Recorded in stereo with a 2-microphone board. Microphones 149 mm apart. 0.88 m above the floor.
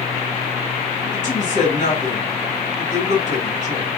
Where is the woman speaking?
55° left (ahead or behind), 2 m.